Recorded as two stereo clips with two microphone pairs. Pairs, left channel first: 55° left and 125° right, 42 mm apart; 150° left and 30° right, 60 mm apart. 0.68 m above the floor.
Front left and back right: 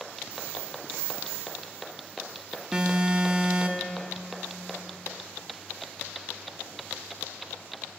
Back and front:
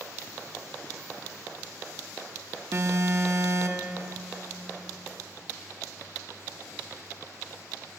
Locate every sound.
2.7 s an alarm: 55° right, 0.8 m